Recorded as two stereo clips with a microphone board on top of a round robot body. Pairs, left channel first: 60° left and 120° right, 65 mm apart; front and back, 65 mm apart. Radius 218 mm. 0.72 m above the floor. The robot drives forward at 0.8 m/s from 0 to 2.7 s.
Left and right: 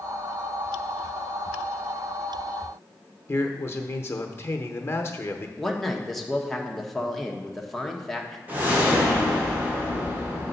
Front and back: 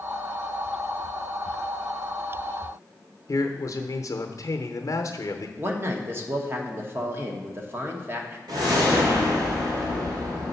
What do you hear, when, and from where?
3.3 s a man speaking: 20° left, 0.9 m
5.6 s a man speaking: 145° left, 1.3 m
8.5 s a whoosh: 175° left, 1.9 m